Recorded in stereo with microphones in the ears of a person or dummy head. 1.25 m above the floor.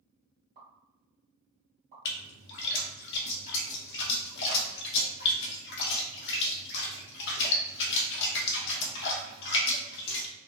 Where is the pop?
40° right (ahead or behind), 1.4 m.